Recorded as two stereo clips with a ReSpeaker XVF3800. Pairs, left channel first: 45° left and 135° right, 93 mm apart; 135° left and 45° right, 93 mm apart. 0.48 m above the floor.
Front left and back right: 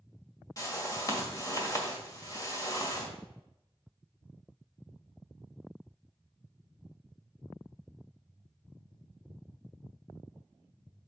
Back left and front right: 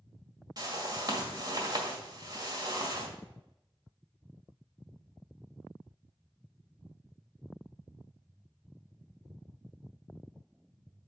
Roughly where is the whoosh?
Ahead.